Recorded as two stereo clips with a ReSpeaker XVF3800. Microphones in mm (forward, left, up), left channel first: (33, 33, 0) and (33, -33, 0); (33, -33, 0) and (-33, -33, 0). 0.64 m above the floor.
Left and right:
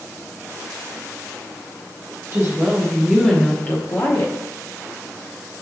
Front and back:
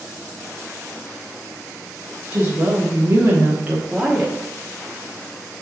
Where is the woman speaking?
130° right, 1.4 m; by 4.3 s 95° left, 1.3 m.